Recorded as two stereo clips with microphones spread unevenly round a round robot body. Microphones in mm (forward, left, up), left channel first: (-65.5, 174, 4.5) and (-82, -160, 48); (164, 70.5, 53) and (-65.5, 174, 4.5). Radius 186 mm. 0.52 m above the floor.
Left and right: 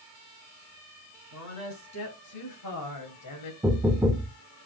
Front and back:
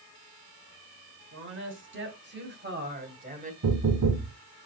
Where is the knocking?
Straight behind, 0.9 m.